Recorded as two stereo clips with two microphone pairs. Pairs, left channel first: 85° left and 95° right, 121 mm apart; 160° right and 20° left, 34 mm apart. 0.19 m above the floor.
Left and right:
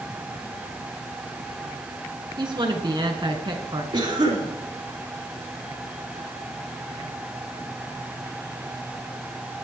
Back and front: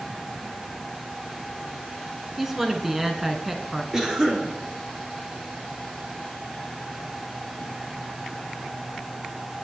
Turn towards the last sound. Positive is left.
turn(degrees=-50)